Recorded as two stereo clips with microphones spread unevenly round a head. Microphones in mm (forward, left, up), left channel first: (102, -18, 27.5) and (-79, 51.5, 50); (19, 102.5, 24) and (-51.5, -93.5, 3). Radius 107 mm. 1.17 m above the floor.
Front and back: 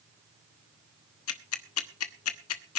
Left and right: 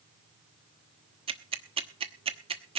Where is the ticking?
40° right, 1.1 m.